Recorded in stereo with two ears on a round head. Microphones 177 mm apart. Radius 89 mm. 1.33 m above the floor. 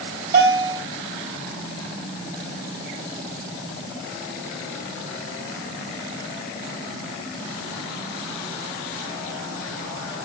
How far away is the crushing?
I don't hear crushing.